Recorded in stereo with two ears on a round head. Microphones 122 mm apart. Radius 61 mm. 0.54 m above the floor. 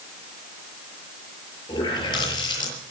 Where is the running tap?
35° left (ahead or behind), 7.5 m.